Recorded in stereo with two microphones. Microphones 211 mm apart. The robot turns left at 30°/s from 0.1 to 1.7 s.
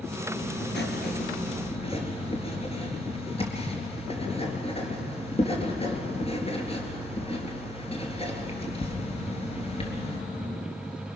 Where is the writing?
65° left, 3.5 m; by 10.2 s 30° left, 3.5 m.